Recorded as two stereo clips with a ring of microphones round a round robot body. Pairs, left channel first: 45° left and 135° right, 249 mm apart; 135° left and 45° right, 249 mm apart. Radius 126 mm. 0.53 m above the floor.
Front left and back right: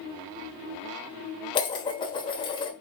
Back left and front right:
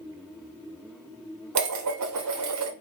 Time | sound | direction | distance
1.6 | dishes clattering | 25° right | 1.1 m